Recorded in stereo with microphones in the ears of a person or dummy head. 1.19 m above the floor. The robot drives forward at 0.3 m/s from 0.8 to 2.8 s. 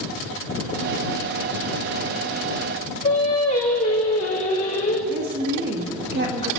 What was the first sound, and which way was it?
Singing, 45° left (ahead or behind).